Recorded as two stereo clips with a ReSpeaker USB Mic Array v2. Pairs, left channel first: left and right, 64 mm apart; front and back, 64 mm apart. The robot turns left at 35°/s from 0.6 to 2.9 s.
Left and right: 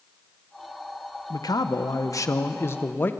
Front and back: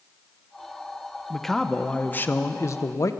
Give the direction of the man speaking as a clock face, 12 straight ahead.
9 o'clock.